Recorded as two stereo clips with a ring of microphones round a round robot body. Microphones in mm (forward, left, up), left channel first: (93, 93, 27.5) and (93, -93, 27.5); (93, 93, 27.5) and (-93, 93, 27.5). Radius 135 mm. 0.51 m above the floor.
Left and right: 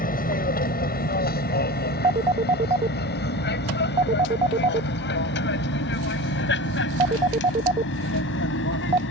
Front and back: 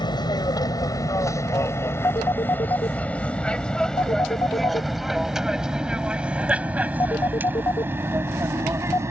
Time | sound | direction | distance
0.0 | an aircraft | 60° left | ?
2.0 | a phone ringing | 60° right | ?